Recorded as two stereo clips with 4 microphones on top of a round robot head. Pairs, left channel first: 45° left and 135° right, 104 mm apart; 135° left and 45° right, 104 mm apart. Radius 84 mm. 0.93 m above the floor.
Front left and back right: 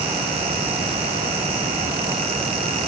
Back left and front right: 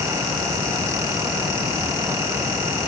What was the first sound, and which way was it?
Only background noise.